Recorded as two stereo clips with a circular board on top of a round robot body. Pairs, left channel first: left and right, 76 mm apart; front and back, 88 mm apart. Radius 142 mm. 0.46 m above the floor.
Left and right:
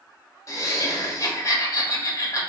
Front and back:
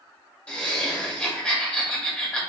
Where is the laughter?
75° left, 1.4 m.